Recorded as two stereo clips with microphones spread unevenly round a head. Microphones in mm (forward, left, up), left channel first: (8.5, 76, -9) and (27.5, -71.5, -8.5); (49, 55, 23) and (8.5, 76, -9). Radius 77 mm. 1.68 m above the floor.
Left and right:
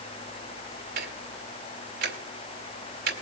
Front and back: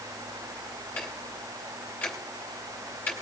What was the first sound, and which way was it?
Ticking, 75° right.